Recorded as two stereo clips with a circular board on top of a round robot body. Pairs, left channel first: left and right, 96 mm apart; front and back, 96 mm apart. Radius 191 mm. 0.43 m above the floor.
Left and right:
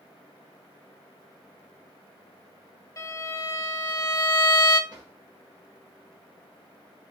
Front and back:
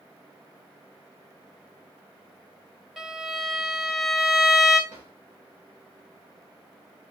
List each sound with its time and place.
3.0 s a violin: 100° left, 1.3 m
4.9 s a drawer: 135° right, 2.5 m